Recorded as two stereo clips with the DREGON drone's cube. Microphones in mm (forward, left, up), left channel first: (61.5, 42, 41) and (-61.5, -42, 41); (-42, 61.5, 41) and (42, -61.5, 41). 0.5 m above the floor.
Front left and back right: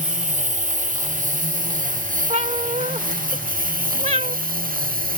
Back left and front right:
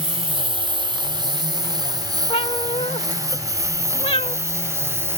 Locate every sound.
0.0 s a lawn mower: 110° right; by 5.2 s 130° right
2.3 s a cat meowing: 175° left